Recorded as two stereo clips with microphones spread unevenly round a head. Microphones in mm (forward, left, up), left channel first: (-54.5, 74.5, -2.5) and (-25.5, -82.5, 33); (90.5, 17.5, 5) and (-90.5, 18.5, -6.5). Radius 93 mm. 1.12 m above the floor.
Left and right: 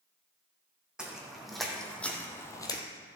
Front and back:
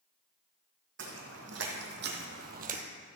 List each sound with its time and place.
1.0 s footsteps: 160° right, 2.5 m; by 2.8 s 165° left, 1.3 m